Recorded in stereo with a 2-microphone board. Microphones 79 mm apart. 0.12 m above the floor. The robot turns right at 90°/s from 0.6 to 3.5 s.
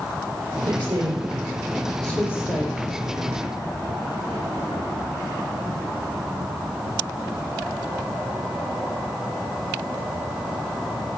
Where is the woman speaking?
55° right (ahead or behind), 4 m; by 2.8 s 65° left (ahead or behind), 4 m.